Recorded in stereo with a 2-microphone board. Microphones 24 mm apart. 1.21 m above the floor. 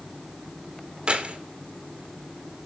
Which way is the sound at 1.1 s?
50° right (ahead or behind).